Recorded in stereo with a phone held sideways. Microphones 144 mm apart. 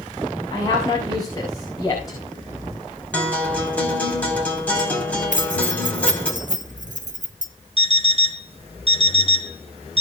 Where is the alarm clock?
45° right (ahead or behind), 0.7 m.